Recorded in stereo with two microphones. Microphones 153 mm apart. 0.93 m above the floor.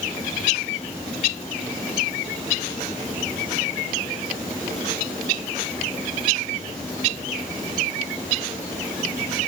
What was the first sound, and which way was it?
Only background noise.